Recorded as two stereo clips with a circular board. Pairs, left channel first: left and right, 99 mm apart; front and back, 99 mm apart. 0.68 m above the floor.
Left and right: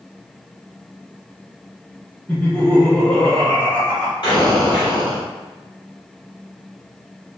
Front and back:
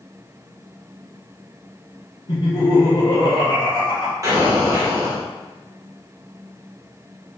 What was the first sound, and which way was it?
Laughter, 10° left.